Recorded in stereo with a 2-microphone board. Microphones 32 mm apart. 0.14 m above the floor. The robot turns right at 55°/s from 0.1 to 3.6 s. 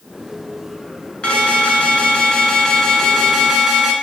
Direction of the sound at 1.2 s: 65° left.